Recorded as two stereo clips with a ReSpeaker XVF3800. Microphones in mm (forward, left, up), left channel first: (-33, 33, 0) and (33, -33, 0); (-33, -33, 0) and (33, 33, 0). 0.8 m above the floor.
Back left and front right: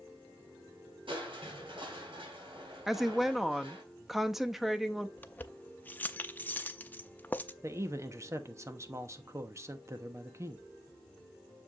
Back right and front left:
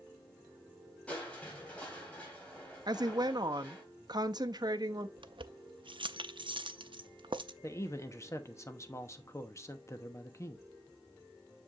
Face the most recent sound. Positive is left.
turn(degrees=-90)